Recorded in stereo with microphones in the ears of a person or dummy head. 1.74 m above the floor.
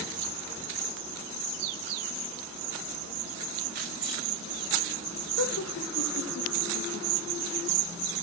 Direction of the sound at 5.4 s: 80° left.